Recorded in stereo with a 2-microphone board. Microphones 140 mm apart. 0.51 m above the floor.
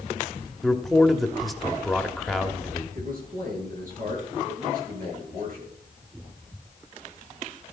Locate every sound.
0.6 s a man speaking: centre (ahead or behind), 1.2 m
3.0 s a man speaking: 65° right (ahead or behind), 9 m